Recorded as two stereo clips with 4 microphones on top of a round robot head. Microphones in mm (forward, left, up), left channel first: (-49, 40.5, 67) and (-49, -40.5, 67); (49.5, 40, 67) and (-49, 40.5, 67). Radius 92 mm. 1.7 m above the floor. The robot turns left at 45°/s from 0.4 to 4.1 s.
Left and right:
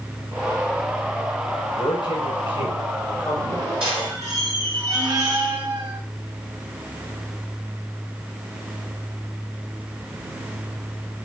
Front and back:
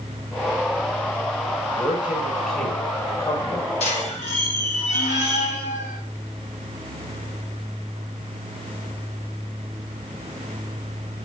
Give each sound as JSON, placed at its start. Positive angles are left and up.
{"t": 1.8, "sound": "a man speaking", "azimuth_deg": 115, "distance_m": 5.5}
{"t": 3.8, "sound": "a squeak", "azimuth_deg": -10, "distance_m": 1.8}